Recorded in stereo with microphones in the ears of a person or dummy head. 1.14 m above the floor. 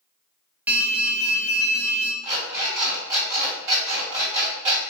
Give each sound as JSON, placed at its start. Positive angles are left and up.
{"t": 0.7, "sound": "an alarm", "side_deg": -10, "distance_m": 0.5}
{"t": 2.2, "sound": "an alarm clock", "side_deg": -15, "distance_m": 1.9}